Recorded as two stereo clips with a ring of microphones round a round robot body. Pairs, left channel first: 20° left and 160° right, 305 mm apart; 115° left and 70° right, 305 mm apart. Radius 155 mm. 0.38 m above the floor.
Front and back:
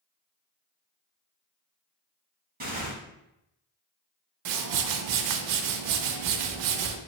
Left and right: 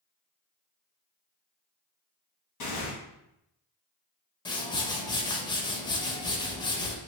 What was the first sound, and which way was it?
Tearing paper, 140° left.